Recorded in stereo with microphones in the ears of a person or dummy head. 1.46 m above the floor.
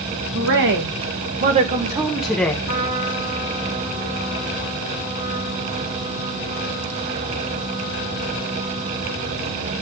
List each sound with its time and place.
0.3 s a woman speaking: 65° right (ahead or behind), 1.8 m; by 2.5 s 10° left (ahead or behind), 1.1 m
2.6 s a trumpet: 40° right (ahead or behind), 3 m